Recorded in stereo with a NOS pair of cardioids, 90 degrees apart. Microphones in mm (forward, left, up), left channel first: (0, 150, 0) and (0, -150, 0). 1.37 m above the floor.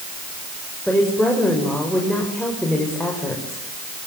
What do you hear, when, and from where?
0.9 s a woman speaking: straight ahead, 7 m